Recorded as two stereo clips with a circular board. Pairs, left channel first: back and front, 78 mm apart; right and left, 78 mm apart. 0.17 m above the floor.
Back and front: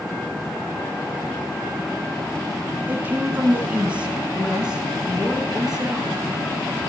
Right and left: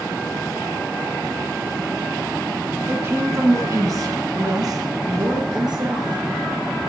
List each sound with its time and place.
2.9 s a woman speaking: 50° left, 1.6 m; by 6.9 s 85° left, 3 m